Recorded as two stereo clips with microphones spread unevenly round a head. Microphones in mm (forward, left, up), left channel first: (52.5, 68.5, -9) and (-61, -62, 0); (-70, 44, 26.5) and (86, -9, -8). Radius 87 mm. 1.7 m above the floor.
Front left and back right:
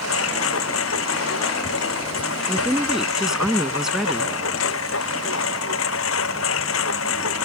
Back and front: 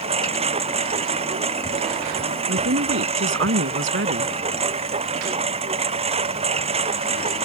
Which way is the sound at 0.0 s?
35° left.